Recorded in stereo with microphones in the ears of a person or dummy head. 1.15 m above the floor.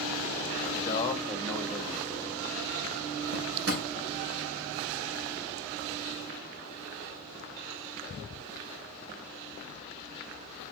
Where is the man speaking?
25° left (ahead or behind), 2.0 m; by 2.3 s 25° right (ahead or behind), 2 m.